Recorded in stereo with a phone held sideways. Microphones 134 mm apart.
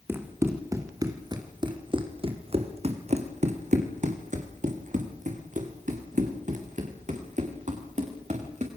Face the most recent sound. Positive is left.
turn(degrees=-65)  # may be behind; listen again after turning